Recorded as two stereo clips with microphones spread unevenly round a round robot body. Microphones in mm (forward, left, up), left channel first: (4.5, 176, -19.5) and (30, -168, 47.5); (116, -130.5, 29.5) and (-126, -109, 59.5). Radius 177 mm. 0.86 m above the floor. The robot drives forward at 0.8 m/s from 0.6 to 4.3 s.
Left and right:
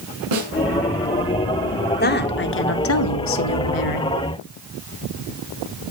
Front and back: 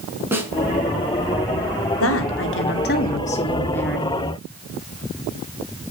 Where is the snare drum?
105° right, 5 m.